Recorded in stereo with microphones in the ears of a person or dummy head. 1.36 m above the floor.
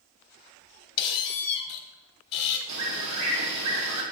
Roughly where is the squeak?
Left.